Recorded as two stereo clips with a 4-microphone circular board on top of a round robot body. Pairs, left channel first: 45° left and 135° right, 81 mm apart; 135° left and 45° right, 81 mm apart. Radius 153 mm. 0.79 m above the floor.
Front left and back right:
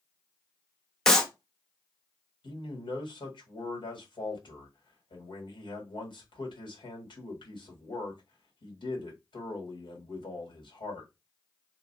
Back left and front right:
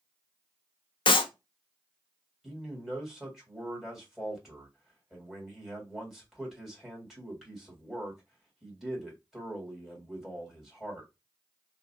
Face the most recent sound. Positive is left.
turn(degrees=40)